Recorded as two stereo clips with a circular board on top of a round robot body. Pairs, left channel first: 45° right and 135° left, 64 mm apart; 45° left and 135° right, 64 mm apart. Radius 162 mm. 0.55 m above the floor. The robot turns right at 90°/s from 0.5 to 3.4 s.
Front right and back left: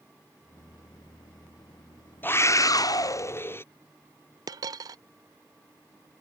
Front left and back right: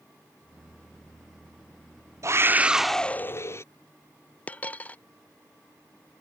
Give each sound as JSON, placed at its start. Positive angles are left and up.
{"t": 2.2, "sound": "a scream", "azimuth_deg": -100}
{"t": 4.5, "sound": "a dropped coin", "azimuth_deg": 115}